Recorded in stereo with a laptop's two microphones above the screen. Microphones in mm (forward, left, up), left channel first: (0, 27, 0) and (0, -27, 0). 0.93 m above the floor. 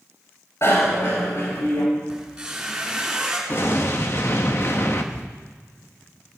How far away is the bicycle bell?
About 3.5 m.